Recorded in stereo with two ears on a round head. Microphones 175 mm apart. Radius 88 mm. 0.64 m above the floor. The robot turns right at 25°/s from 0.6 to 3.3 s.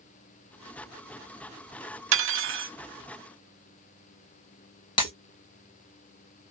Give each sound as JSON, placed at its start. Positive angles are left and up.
{"t": 2.1, "sound": "cutlery clinking", "side_deg": -75, "distance_m": 0.8}
{"t": 5.0, "sound": "breaking glass", "side_deg": 25, "distance_m": 2.0}